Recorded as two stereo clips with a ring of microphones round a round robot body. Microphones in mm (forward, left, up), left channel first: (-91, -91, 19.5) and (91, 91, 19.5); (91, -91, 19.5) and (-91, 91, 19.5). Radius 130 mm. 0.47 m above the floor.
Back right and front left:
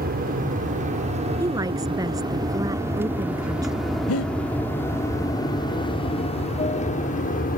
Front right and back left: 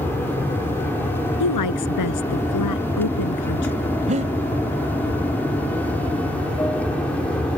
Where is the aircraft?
30° left; by 7.6 s 125° right.